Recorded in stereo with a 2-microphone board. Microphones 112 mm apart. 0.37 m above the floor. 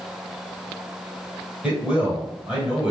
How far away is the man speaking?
About 1.6 m.